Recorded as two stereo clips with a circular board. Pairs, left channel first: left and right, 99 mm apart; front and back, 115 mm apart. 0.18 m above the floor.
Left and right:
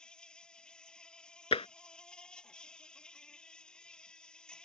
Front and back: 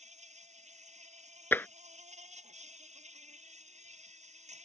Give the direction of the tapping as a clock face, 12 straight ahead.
10 o'clock.